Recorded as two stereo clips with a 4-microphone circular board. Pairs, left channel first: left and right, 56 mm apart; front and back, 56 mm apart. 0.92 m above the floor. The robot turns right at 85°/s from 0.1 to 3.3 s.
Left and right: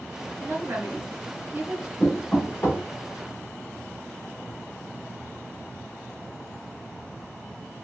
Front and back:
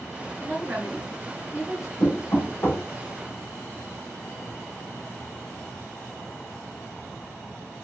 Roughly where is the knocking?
Ahead.